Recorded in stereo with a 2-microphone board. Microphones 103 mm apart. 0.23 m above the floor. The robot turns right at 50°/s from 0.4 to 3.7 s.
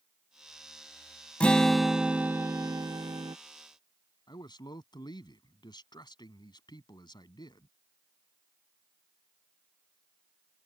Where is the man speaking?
45° left (ahead or behind).